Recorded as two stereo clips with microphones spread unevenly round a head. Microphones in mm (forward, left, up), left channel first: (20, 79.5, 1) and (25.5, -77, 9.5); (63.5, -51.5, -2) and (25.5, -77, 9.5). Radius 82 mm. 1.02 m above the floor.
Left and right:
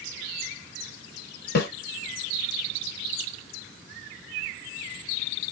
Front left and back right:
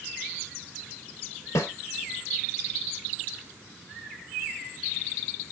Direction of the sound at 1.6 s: 70° left.